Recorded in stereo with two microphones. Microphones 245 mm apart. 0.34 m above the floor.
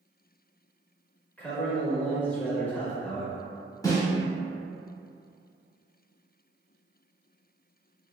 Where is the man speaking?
5° left (ahead or behind), 0.9 m.